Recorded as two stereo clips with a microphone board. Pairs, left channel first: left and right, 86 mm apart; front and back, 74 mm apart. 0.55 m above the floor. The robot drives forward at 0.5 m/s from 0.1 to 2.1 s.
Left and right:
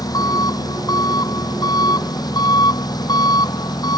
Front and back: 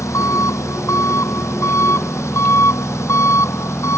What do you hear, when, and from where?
0.0 s an engine running: 45° left; by 4.0 s 50° left